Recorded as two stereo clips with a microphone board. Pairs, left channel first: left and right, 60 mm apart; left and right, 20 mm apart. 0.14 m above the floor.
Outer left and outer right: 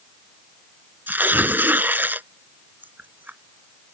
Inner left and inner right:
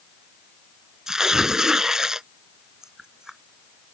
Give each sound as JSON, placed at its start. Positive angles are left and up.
{"t": 1.1, "sound": "tearing paper", "side_deg": -35}